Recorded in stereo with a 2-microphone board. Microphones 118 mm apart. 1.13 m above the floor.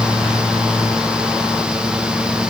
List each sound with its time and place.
Only background noise.